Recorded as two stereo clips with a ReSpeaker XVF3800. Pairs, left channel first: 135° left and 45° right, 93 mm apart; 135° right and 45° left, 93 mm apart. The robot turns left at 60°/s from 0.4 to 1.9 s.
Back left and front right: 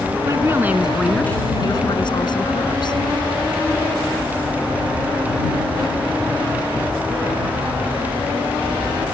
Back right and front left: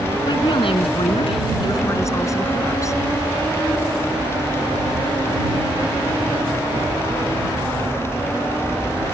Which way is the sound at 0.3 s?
100° right.